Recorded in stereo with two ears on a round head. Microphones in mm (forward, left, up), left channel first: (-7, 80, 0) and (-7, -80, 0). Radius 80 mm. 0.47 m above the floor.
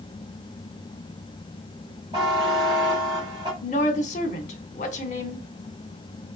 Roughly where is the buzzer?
Right.